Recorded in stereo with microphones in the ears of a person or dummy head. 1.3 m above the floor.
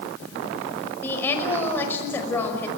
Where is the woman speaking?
15° left (ahead or behind), 5.5 m.